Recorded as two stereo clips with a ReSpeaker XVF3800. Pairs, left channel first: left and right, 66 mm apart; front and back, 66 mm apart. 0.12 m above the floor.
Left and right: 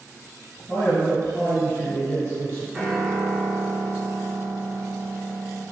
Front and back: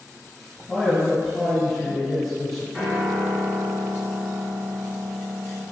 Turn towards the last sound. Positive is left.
turn(degrees=-130)